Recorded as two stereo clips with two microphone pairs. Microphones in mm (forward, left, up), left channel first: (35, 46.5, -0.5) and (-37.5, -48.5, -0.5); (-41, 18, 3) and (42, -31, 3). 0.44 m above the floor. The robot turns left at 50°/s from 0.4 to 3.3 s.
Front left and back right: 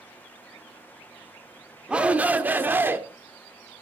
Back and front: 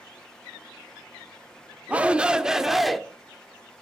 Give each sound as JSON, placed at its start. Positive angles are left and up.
{"t": 1.9, "sound": "a shout", "azimuth_deg": -70, "distance_m": 0.7}